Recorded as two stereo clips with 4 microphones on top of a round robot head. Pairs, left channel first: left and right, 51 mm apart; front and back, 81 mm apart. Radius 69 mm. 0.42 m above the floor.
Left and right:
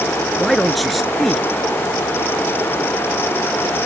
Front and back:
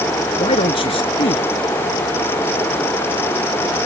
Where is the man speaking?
Straight ahead.